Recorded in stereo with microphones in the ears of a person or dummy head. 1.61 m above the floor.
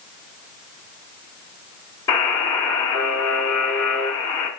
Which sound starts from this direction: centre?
A buzzer, at 2.1 s.